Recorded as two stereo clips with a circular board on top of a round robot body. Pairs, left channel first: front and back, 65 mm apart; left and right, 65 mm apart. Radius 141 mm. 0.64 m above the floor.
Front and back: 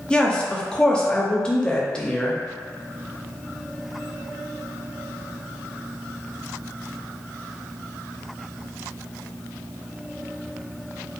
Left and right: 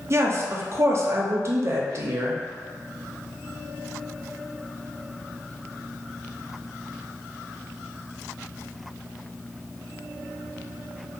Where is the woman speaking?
70° right, 0.6 m.